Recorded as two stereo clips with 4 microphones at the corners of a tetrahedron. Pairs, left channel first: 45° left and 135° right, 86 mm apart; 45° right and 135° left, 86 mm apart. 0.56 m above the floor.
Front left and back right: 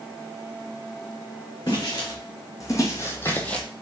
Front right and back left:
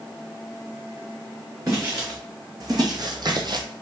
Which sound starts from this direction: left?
Footsteps, at 1.7 s.